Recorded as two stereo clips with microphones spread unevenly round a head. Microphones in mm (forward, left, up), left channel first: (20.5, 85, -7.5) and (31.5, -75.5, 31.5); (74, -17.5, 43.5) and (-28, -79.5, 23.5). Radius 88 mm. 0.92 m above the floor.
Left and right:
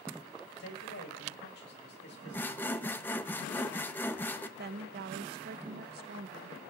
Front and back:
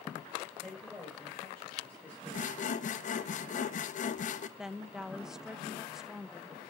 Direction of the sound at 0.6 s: 120° left.